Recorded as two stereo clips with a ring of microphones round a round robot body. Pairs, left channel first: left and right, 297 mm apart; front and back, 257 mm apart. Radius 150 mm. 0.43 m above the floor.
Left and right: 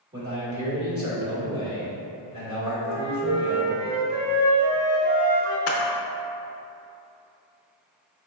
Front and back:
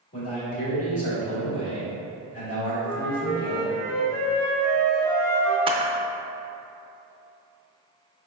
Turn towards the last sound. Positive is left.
turn(degrees=115)